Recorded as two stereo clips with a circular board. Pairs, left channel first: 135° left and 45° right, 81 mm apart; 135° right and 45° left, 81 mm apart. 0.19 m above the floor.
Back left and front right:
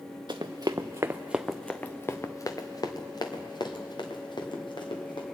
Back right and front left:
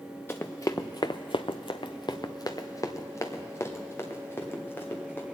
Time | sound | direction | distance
0.3 | running footsteps | 70° right | 1.0 m